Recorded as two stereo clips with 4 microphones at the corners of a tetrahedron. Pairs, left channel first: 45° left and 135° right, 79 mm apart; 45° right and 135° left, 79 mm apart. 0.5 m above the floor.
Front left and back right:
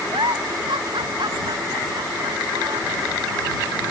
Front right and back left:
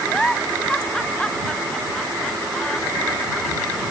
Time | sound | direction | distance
0.1 | a giggle | 125° right | ?